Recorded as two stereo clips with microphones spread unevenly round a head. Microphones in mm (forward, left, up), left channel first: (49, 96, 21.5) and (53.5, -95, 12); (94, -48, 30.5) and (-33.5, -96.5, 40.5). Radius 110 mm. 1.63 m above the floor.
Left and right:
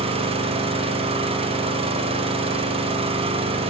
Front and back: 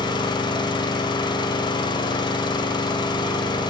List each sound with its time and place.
0.0 s an engine running: 35° right, 0.8 m